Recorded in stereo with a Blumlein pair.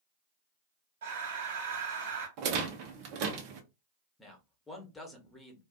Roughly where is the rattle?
Ahead right.